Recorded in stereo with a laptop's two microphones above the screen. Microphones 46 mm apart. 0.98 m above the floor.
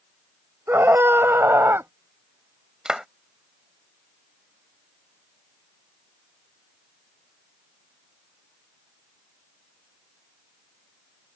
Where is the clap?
15° right (ahead or behind).